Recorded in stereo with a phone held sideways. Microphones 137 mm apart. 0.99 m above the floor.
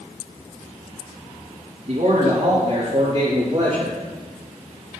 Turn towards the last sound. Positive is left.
turn(degrees=-25)  # may be behind; listen again after turning